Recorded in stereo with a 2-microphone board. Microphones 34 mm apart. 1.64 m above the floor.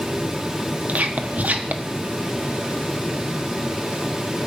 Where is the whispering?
50° right (ahead or behind), 1.3 m.